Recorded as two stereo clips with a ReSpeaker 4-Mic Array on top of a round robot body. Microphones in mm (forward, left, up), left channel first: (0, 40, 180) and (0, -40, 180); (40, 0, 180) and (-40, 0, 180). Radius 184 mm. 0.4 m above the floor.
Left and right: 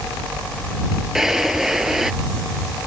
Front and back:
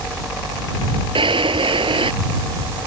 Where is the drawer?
175° right.